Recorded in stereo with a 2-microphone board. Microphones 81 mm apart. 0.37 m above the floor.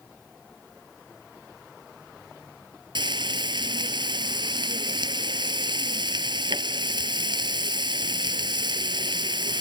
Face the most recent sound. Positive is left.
turn(degrees=-70)  # may be behind; listen again after turning